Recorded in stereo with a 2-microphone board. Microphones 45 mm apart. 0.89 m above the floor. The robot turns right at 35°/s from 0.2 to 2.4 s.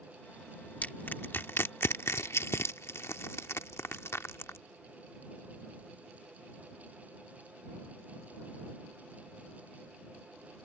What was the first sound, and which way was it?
Crushing, 35° left (ahead or behind).